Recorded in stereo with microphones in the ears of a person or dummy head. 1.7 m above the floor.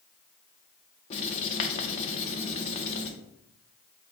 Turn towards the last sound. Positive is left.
turn(degrees=35)  # may be behind; listen again after turning